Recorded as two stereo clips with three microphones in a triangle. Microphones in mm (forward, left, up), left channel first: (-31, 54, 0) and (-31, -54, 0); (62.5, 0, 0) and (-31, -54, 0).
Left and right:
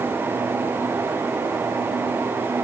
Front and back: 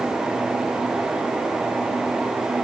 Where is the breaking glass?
I don't hear breaking glass.